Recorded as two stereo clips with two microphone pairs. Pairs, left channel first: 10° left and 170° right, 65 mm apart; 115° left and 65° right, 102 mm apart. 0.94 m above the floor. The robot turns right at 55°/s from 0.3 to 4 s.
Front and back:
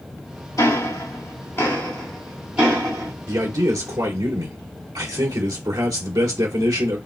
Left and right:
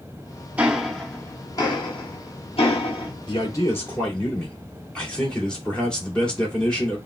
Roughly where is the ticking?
Ahead.